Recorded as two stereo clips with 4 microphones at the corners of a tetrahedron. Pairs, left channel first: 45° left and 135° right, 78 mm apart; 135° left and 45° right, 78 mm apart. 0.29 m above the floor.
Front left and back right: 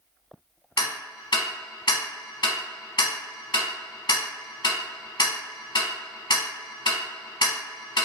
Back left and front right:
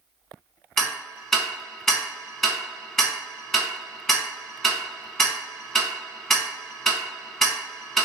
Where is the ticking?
50° left, 0.7 m.